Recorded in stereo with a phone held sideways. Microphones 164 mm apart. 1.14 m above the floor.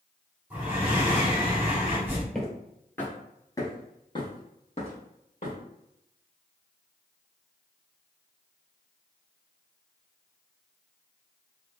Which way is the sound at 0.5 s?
10° right (ahead or behind).